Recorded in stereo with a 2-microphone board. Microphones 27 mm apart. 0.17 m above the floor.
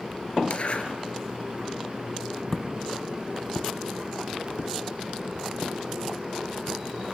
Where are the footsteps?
25° left (ahead or behind), 0.8 m; by 7.2 s 75° left (ahead or behind), 3.5 m.